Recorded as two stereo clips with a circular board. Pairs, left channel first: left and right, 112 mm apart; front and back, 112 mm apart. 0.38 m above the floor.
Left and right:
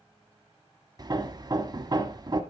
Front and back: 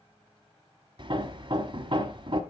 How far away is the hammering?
About 0.9 m.